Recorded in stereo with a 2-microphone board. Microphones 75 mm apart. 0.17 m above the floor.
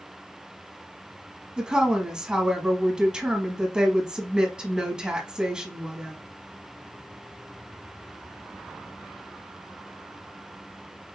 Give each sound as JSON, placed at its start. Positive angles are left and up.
{"t": 1.6, "sound": "a woman speaking", "side_deg": -10, "distance_m": 1.2}